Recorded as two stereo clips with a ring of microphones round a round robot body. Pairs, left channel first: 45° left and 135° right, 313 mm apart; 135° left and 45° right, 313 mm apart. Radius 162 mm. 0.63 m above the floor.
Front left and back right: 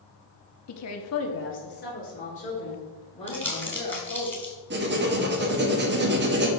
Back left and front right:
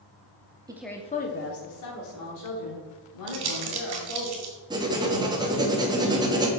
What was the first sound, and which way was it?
A woman speaking, 30° left.